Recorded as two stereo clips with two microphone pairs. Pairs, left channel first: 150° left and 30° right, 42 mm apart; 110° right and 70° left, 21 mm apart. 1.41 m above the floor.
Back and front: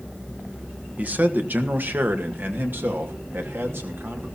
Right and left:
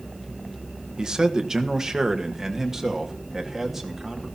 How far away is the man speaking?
About 1.5 m.